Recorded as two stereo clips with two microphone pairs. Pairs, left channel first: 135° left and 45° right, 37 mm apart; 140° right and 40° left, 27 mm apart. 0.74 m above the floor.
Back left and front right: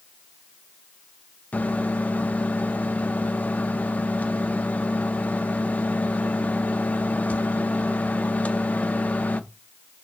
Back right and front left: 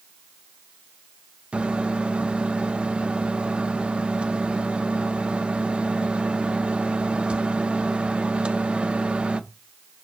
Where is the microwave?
90° left, 0.7 m.